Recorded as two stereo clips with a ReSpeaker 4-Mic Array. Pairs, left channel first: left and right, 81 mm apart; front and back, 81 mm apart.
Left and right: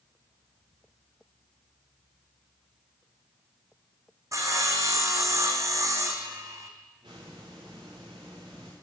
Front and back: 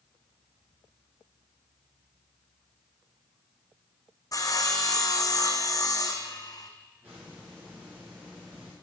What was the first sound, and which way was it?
Sawing, 40° right.